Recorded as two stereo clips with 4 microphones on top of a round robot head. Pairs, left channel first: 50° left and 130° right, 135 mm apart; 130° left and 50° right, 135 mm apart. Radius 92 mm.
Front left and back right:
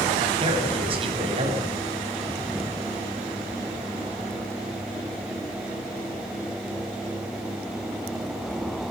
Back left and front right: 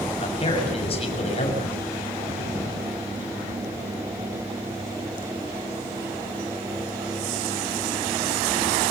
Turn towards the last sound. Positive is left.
turn(degrees=180)